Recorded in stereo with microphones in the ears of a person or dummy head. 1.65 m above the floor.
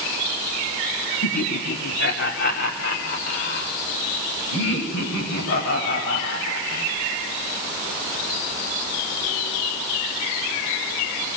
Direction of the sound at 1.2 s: 60° left (ahead or behind).